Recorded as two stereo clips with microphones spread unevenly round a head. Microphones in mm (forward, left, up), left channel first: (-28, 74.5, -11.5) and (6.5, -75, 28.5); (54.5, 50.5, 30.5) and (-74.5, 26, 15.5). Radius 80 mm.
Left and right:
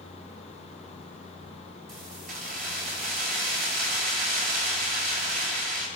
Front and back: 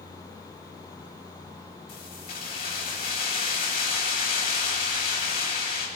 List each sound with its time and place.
1.9 s keys jangling: 45° right, 8 m